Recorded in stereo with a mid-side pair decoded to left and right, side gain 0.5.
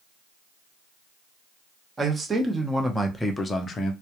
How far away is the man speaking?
About 1.2 m.